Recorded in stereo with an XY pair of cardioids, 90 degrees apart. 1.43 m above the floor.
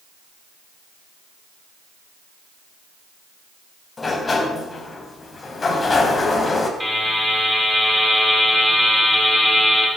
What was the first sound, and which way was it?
A sliding door, 35° left.